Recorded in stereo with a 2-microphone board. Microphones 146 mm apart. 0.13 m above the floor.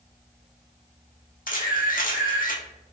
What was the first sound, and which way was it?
A camera shutter, 75° left (ahead or behind).